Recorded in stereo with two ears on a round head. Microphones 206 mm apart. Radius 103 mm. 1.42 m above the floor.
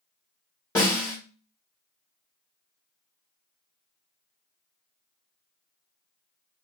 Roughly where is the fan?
I don't hear a fan.